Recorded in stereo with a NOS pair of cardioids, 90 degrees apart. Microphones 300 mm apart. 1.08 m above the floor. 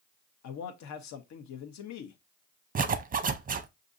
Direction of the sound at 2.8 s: 30° right.